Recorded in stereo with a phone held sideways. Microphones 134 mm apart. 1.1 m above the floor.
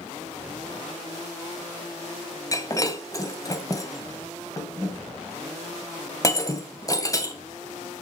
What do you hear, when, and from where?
2.5 s breaking glass: 25° left (ahead or behind), 2 m